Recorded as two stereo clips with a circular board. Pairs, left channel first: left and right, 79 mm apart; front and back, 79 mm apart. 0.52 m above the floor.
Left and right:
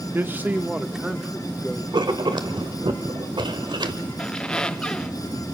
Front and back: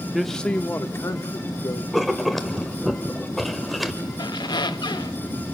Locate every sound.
0.1 s a man speaking: 95° right, 0.7 m; by 1.8 s 10° left, 1.2 m
1.9 s writing: 90° right, 1.1 m
4.2 s a squeak: 10° left, 0.6 m